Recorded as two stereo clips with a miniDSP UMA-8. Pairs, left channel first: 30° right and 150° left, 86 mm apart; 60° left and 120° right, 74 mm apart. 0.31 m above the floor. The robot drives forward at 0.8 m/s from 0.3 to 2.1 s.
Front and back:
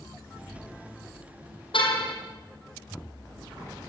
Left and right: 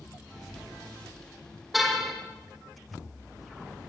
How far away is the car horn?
About 5 m.